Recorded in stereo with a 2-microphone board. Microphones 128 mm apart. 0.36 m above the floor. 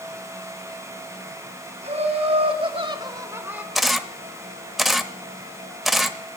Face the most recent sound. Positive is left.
turn(degrees=0)  # may be behind; listen again after turning